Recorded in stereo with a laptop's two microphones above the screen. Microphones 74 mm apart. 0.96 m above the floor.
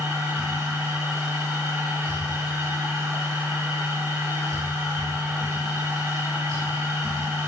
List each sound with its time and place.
0.0 s a machine running: 55° right (ahead or behind), 4.5 m